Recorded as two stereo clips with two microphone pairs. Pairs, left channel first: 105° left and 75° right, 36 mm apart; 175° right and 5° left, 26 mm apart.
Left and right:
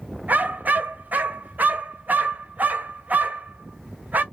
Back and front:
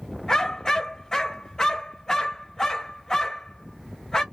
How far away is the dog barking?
About 0.7 m.